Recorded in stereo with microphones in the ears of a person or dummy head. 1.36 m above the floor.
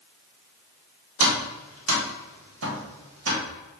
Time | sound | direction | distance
1.2 | tapping | 90° right | 1.5 m